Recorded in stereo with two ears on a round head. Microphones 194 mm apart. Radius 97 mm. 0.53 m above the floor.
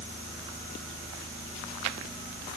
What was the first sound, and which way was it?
Only background noise.